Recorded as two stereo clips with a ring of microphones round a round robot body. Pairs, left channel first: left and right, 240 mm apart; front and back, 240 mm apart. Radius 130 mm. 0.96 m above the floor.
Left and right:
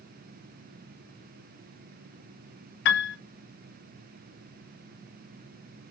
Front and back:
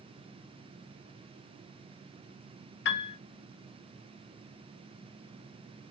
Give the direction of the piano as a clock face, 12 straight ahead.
10 o'clock.